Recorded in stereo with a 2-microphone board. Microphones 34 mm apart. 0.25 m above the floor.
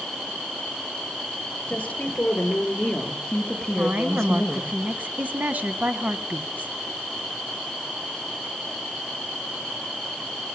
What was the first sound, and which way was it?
A woman speaking, 45° left (ahead or behind).